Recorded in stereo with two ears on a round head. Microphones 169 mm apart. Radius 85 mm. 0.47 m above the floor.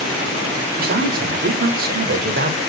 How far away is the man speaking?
About 1.5 m.